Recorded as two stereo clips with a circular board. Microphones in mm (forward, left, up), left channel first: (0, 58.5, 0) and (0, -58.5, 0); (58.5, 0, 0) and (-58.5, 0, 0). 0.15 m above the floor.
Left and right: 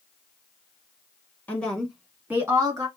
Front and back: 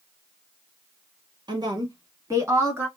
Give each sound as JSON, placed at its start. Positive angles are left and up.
{"t": 1.5, "sound": "a woman speaking", "azimuth_deg": 160, "distance_m": 1.3}